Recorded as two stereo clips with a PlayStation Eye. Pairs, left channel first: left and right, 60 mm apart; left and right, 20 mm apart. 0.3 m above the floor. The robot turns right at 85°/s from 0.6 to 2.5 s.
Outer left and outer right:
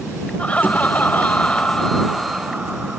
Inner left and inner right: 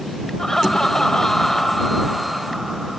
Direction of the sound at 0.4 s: 20° left (ahead or behind).